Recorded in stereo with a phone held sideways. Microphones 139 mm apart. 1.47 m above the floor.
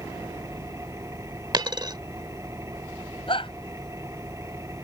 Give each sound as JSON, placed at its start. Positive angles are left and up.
{"t": 0.0, "sound": "an engine running", "side_deg": -20}
{"t": 1.5, "sound": "a dropped coin", "side_deg": -30}
{"t": 3.3, "sound": "a shout", "side_deg": 40}